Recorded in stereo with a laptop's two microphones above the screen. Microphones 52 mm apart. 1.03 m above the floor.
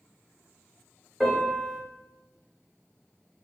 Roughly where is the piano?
Centre.